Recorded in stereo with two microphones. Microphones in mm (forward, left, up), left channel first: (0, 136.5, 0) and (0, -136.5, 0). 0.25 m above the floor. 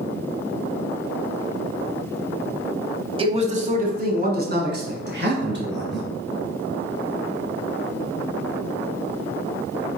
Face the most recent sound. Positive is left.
turn(degrees=-40)  # may be behind; listen again after turning